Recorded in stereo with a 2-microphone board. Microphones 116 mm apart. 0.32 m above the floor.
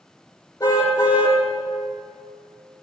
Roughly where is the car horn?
Left.